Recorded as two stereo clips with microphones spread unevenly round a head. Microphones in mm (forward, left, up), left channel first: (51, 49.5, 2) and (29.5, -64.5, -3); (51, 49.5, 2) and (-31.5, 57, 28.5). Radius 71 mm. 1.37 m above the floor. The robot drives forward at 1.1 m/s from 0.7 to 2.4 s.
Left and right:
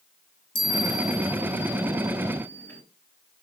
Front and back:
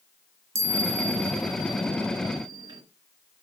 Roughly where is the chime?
Behind left.